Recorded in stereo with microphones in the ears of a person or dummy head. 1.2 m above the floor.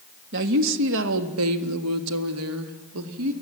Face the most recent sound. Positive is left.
turn(degrees=-70)  # may be behind; listen again after turning